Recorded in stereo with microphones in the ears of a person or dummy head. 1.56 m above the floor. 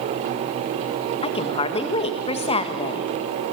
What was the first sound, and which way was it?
A woman speaking, 25° left (ahead or behind).